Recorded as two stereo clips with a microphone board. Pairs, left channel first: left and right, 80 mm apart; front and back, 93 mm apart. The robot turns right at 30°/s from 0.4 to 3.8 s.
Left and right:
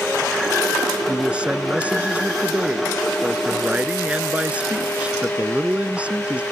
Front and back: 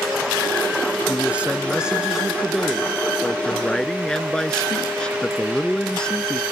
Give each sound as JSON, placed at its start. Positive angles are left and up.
{"t": 1.1, "sound": "a man speaking", "azimuth_deg": -140}